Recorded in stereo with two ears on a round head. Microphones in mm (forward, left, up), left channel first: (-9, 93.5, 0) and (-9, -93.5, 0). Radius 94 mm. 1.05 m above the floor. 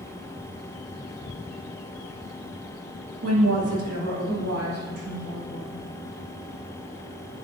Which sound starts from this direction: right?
A woman speaking, at 3.2 s.